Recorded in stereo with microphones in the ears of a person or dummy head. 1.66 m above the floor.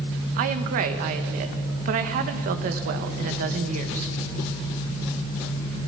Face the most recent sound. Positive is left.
turn(degrees=-50)  # may be behind; listen again after turning